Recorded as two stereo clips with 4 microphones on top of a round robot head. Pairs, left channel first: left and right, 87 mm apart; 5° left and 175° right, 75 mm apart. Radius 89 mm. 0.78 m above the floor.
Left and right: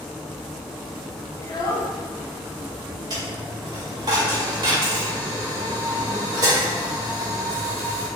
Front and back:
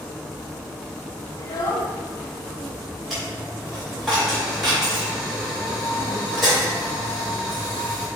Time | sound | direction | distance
1.4 | a child speaking | 40° left | 0.5 m
3.1 | a dropped coin | 85° right | 0.5 m